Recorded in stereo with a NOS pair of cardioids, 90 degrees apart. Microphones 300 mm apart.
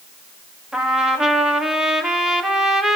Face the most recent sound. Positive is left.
turn(degrees=0)